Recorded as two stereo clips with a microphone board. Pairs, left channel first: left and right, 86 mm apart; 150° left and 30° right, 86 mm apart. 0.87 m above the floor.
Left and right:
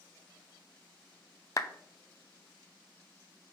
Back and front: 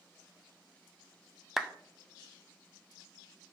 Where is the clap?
55° left, 0.5 m.